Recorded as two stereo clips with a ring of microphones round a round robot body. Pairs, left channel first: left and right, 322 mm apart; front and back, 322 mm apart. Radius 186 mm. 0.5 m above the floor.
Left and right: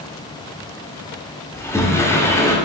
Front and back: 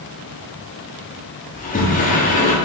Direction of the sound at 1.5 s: 20° left.